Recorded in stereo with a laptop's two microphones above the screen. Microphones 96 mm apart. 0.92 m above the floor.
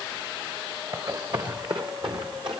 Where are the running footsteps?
45° right (ahead or behind), 3.5 m; by 2.6 s 60° right (ahead or behind), 4.5 m.